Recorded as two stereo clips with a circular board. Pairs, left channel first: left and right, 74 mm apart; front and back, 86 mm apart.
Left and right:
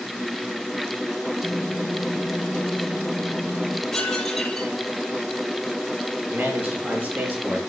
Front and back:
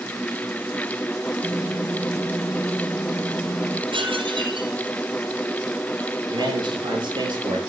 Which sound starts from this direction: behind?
Dishes clattering, at 3.9 s.